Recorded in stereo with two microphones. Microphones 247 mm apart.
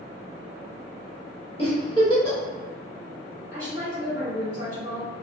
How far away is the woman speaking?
About 1.6 m.